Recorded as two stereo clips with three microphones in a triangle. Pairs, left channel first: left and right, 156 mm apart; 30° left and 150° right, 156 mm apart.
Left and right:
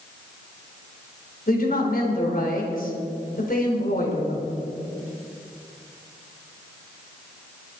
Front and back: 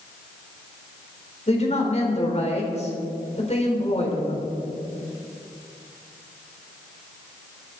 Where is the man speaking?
75° left, 3.5 m.